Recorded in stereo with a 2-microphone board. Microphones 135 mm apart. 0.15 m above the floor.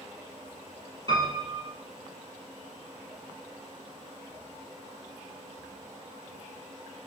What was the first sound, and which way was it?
A piano, 35° right (ahead or behind).